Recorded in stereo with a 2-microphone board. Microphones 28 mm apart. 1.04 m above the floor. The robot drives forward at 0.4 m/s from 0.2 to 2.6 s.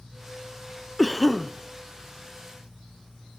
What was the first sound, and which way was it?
A cough, 5° right (ahead or behind).